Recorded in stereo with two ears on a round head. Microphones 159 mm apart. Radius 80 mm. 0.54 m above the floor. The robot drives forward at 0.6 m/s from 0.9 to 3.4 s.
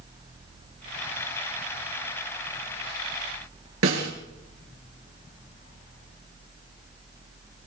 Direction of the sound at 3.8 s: 90° right.